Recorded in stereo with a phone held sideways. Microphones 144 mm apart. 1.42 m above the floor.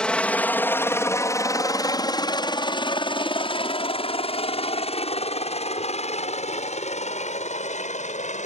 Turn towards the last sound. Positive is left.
turn(degrees=55)  # may be behind; listen again after turning